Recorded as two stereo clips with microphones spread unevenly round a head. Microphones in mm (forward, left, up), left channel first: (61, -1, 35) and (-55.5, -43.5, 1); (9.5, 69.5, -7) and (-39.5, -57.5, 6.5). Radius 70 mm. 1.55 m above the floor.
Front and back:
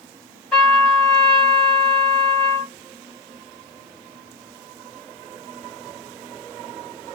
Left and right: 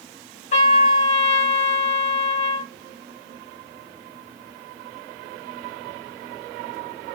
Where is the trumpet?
85° left, 1.7 m.